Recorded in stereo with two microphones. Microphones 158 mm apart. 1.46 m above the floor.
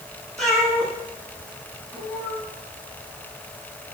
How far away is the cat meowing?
About 7 m.